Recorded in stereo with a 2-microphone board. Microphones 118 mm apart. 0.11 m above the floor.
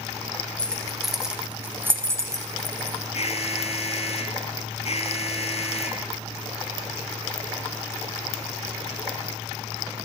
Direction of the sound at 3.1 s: 55° left (ahead or behind).